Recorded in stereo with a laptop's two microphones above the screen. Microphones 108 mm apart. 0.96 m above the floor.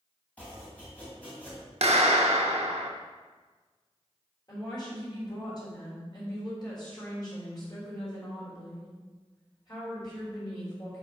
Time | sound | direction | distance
0.4 | chopping | 15° left (ahead or behind) | 2.5 m
1.8 | a clap | 75° right (ahead or behind) | 0.7 m
4.5 | a woman speaking | 40° left (ahead or behind) | 3.5 m